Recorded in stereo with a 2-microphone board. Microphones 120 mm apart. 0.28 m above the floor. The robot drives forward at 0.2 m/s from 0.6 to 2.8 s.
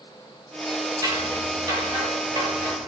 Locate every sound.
1.0 s scissors: 35° right (ahead or behind), 4 m; by 2.9 s 30° right (ahead or behind), 4.5 m